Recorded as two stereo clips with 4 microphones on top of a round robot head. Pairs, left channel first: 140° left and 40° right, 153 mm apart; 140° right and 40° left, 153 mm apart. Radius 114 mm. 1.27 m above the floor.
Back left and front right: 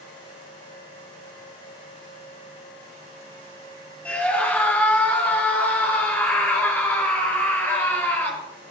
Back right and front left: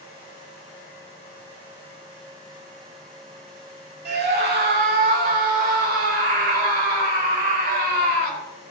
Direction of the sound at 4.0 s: 60° left.